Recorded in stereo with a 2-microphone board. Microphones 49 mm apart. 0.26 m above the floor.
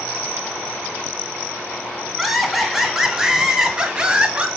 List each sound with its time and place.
2.2 s laughter: 5° right (ahead or behind), 2.5 m; by 4.5 s 25° right (ahead or behind), 2.0 m